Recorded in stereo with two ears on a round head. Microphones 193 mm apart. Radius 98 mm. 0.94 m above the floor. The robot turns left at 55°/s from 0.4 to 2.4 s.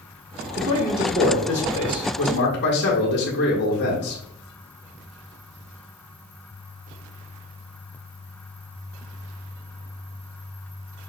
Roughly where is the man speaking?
Behind right.